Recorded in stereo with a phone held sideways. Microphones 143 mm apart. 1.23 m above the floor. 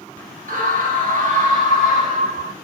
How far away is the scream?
About 2.5 m.